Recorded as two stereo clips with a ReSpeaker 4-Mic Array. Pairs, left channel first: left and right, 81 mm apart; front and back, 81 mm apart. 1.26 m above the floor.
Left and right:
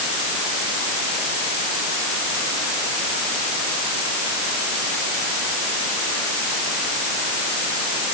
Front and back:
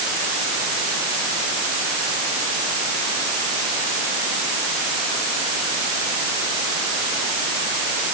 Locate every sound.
Only background noise.